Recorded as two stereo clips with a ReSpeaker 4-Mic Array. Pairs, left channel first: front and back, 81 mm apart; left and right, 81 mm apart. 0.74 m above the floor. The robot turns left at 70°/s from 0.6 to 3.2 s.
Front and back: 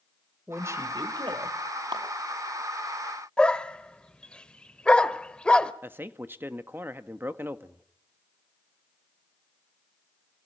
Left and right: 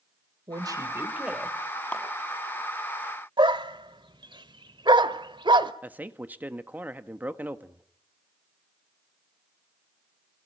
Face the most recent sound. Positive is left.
turn(degrees=-140)